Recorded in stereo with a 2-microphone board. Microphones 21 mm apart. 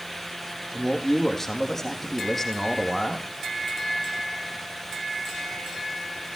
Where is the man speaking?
15° left (ahead or behind), 4 m.